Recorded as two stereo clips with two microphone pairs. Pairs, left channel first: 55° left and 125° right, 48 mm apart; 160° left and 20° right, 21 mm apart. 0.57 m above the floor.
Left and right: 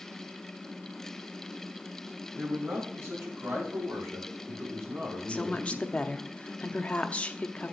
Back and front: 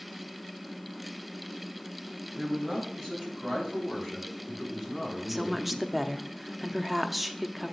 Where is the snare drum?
No snare drum in this recording.